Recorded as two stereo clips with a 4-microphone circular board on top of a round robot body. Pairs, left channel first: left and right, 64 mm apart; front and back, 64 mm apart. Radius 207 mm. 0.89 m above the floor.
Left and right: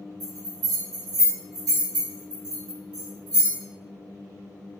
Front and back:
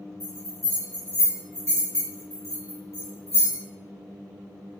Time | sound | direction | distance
0.2 | a bell | 110° right | 1.0 m